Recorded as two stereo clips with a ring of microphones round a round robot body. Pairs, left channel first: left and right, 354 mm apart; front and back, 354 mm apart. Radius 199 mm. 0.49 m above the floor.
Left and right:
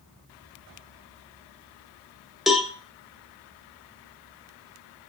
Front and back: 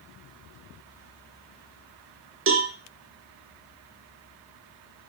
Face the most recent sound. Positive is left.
turn(degrees=180)